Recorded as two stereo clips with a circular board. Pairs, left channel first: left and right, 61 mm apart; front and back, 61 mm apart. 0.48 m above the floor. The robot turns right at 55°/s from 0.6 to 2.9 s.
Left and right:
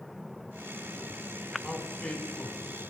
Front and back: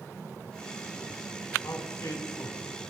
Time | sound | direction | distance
1.6 | a man speaking | 10° right | 4 m